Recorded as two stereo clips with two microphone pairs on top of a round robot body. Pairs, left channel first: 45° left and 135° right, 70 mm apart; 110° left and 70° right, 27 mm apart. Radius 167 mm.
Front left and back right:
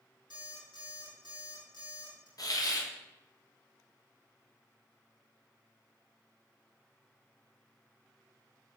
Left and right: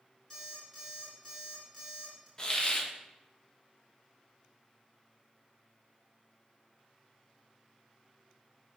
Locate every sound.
0.3 s an alarm clock: 30° left, 4 m
2.4 s a hiss: 50° left, 1.4 m